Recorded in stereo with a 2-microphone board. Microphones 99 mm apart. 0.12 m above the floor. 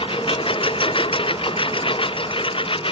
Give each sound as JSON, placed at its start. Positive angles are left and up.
{"t": 0.0, "sound": "a lawn mower", "side_deg": 65}